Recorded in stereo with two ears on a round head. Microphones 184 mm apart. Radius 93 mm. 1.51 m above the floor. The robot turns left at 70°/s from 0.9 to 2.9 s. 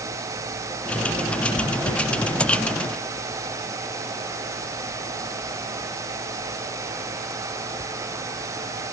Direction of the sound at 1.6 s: 40° left (ahead or behind).